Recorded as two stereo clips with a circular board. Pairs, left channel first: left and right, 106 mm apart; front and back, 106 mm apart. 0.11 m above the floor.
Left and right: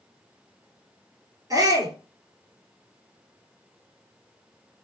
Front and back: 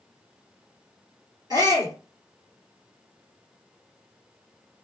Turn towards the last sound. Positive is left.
turn(degrees=-135)